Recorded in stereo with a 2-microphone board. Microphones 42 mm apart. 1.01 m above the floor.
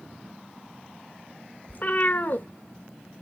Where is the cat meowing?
50° left (ahead or behind), 0.8 m.